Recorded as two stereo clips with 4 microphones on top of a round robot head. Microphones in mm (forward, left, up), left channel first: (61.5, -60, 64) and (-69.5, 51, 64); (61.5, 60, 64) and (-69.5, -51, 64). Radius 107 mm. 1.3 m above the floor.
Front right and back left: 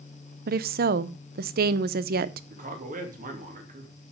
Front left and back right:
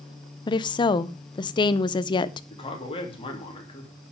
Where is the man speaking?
100° left, 3 m.